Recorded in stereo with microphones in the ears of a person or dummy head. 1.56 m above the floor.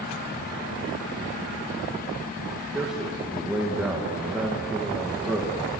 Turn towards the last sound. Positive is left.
turn(degrees=-5)  # may be behind; listen again after turning